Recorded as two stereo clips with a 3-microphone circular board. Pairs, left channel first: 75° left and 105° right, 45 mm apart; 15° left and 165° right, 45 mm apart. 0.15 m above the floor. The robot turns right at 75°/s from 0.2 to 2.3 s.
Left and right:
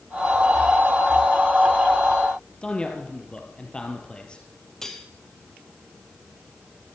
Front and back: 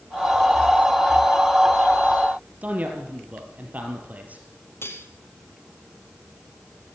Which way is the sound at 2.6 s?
145° left.